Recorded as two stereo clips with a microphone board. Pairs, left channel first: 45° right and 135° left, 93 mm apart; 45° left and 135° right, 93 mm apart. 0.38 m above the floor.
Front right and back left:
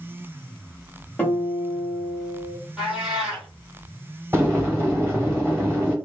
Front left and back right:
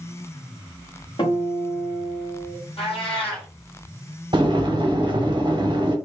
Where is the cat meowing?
50° left, 1.9 m.